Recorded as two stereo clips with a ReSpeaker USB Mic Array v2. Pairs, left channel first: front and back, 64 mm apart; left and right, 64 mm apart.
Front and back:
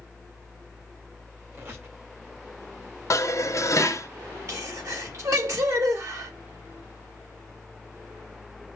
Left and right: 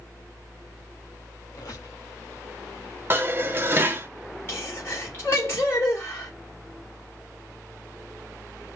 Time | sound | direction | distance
1.5 | a squeak | 125° left | 1.8 m
3.1 | dishes clattering | 35° right | 0.6 m
4.5 | a sneeze | 145° left | 2.5 m